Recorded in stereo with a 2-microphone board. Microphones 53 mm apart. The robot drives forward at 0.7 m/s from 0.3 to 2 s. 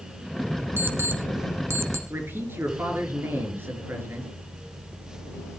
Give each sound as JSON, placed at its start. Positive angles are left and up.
{"t": 0.8, "sound": "an alarm clock", "side_deg": -45, "distance_m": 1.7}
{"t": 2.1, "sound": "a man speaking", "side_deg": -45, "distance_m": 4.0}